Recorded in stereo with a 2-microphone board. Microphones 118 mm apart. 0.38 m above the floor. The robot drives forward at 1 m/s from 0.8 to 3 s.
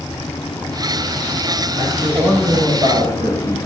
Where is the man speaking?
75° right (ahead or behind), 7 m; by 3.6 s 65° right (ahead or behind), 7 m.